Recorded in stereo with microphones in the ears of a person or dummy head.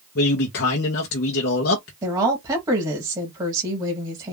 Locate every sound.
0.1 s a man speaking: 55° left (ahead or behind), 0.9 m
2.0 s a woman speaking: 15° right (ahead or behind), 1.8 m